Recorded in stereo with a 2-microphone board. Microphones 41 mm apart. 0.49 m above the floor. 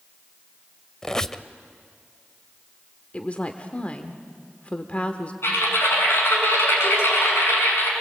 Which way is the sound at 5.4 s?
70° left (ahead or behind).